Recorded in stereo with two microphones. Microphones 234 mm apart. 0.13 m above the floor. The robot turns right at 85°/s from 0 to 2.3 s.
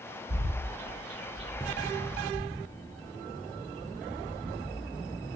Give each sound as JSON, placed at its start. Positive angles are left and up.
{"t": 0.3, "sound": "a bird", "side_deg": -30, "distance_m": 2.5}